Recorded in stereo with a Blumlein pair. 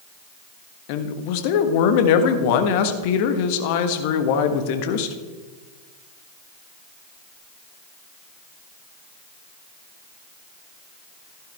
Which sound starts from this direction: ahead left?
A man speaking, at 0.9 s.